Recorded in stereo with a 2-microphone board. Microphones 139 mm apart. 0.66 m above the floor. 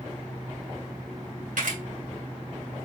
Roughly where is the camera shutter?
Right.